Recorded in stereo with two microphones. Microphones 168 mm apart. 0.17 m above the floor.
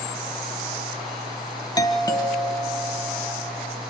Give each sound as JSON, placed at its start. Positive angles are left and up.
{"t": 1.8, "sound": "a doorbell", "side_deg": 25, "distance_m": 1.5}